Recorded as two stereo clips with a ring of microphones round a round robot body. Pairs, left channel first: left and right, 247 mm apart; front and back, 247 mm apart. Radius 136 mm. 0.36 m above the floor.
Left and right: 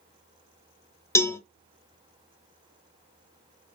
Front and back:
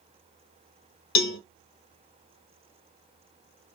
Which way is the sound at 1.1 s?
10° left.